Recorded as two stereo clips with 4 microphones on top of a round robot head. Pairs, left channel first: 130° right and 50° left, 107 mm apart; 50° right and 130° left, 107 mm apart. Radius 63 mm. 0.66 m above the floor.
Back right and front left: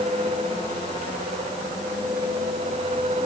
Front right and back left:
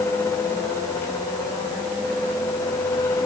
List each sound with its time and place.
Only background noise.